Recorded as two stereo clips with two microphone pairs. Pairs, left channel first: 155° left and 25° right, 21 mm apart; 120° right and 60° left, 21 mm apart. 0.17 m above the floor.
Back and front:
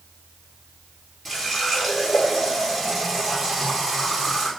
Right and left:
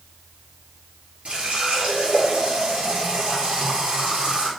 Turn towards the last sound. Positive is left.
turn(degrees=75)